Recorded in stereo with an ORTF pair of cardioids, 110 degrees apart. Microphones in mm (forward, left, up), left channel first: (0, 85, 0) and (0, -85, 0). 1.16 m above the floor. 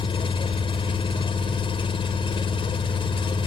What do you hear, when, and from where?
0.0 s an engine running: 30° left